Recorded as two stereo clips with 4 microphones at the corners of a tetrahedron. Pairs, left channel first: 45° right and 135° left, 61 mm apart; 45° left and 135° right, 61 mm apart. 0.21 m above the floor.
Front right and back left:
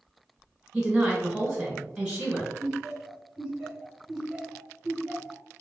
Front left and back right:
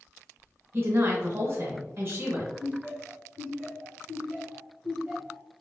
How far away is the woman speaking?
About 1.4 m.